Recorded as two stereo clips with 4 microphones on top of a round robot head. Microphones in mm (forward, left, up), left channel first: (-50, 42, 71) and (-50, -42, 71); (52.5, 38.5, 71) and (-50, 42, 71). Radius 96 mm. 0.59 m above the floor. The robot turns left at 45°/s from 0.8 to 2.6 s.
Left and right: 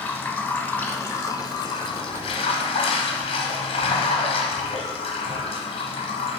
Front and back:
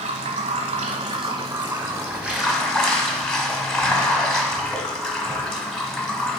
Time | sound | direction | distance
0.0 | running water | 165° left | 1.0 m